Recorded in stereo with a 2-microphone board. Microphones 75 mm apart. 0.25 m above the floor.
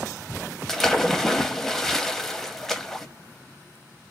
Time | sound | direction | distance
0.7 | a splash | 5° left (ahead or behind) | 0.5 m